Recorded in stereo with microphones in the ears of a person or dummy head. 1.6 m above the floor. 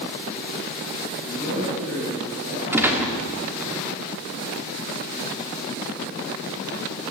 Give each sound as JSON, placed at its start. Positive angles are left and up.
{"t": 1.2, "sound": "a man speaking", "side_deg": -75, "distance_m": 10.0}
{"t": 2.7, "sound": "a gunshot", "side_deg": -10, "distance_m": 2.0}